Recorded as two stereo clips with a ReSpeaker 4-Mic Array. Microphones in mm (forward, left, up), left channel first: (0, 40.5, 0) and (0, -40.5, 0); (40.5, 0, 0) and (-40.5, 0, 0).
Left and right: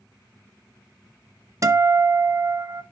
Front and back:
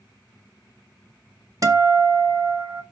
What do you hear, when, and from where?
1.6 s a guitar: 140° right, 1.1 m